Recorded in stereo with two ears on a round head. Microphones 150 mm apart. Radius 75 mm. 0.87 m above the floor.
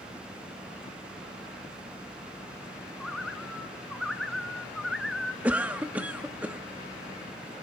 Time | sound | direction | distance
3.0 | a bird | centre (ahead or behind) | 1.8 m
5.4 | a cough | 10° right (ahead or behind) | 1.0 m